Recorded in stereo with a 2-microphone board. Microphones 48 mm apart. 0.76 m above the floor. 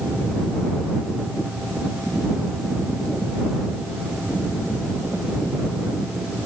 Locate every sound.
Only background noise.